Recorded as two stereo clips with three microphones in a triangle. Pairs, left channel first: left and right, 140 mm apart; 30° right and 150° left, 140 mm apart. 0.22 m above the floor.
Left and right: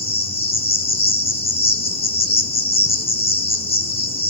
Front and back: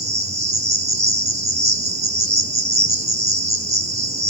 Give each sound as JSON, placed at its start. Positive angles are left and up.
{"t": 0.0, "sound": "an insect", "azimuth_deg": 125, "distance_m": 1.1}